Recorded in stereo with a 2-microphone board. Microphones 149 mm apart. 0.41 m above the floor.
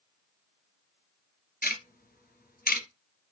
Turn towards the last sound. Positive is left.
turn(degrees=85)